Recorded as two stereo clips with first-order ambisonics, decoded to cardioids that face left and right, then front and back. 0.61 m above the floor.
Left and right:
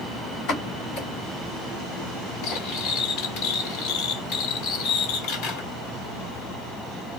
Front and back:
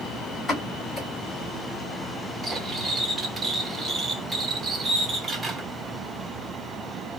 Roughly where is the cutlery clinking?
Left.